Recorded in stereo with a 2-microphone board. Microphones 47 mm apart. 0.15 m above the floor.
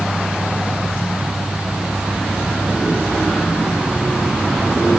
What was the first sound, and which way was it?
Only background noise.